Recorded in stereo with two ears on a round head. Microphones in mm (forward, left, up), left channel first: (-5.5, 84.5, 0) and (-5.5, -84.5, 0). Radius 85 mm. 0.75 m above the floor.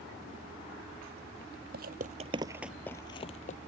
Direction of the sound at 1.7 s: 55° right (ahead or behind).